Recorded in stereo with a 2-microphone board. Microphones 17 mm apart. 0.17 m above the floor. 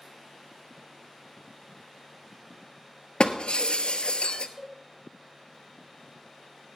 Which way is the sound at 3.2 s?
75° left (ahead or behind).